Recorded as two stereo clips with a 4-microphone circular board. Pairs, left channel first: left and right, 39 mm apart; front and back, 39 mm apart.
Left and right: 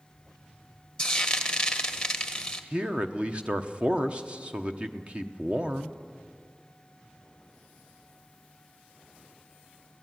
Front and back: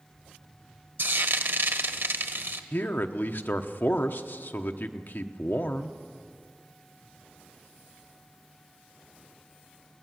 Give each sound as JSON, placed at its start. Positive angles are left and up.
{"t": 1.0, "sound": "frying", "azimuth_deg": 165, "distance_m": 1.3}
{"t": 2.7, "sound": "a man speaking", "azimuth_deg": -30, "distance_m": 1.0}